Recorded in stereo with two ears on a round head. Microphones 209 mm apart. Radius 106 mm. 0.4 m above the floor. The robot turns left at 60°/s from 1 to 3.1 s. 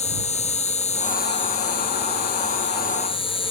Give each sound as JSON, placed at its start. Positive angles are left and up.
{"t": 0.0, "sound": "an insect", "azimuth_deg": 150}